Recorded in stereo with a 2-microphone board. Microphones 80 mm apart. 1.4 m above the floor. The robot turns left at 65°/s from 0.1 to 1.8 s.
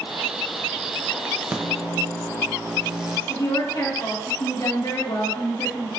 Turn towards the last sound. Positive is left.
turn(degrees=75)  # may be behind; listen again after turning